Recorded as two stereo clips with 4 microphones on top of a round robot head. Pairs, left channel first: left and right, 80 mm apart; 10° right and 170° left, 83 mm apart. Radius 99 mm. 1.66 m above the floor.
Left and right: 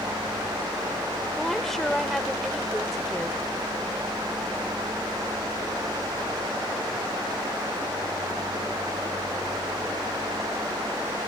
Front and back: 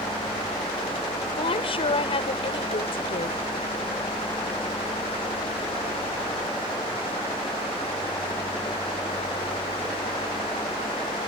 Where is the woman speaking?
Straight ahead.